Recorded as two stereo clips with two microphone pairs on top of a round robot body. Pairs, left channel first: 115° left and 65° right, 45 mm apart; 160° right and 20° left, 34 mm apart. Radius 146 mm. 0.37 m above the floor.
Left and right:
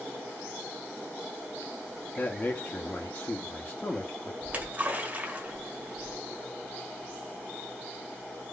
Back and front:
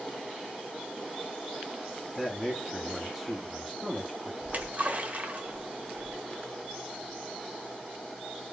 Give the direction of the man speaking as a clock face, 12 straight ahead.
9 o'clock.